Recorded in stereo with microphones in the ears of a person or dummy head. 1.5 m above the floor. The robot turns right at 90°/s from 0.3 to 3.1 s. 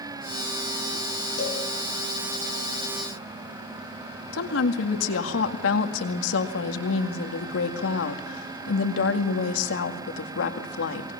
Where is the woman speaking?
80° left, 2 m.